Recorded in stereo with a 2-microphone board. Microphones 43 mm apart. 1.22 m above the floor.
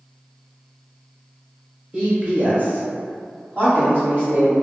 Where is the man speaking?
25° right (ahead or behind), 0.9 m; by 4.5 s 60° right (ahead or behind), 2 m.